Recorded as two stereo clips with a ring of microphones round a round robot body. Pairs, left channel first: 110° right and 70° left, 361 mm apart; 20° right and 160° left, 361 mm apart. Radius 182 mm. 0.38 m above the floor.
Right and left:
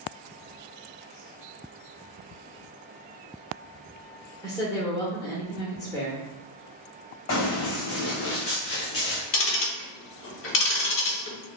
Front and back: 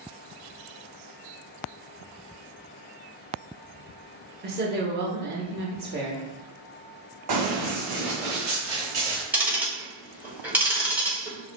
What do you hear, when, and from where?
4.4 s a woman speaking: 175° left, 0.9 m
7.3 s running footsteps: 170° right, 1.5 m; by 9.2 s 175° right, 3 m
9.3 s ticking: 120° right, 1.0 m